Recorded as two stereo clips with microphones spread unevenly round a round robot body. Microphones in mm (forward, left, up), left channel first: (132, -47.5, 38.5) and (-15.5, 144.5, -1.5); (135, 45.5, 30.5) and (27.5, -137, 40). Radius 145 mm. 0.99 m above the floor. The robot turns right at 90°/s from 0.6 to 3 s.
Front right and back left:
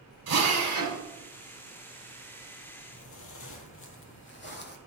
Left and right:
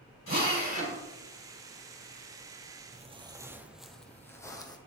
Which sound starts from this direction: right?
Footsteps, at 2.9 s.